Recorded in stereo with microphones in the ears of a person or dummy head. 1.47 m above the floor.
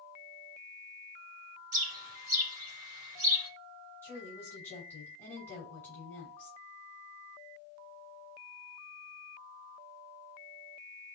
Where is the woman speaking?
15° left (ahead or behind), 2.5 m.